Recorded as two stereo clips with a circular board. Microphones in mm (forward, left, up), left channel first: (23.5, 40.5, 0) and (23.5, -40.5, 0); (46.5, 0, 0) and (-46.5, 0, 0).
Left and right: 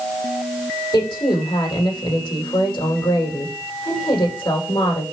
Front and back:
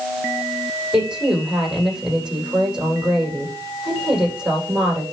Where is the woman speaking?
100° left, 9 m.